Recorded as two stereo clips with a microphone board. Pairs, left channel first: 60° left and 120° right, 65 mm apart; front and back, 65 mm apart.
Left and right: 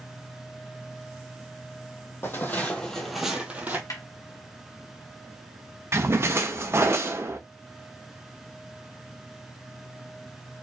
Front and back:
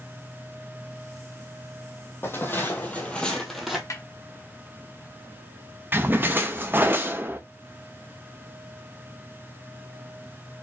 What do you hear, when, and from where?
2.2 s footsteps: 30° left, 1.7 m; by 3.8 s 95° right, 1.5 m
3.9 s a snare drum: 30° left, 1.2 m
5.9 s a splash: 140° right, 0.7 m